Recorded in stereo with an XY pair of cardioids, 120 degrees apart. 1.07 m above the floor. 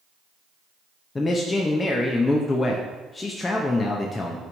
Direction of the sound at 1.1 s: 20° left.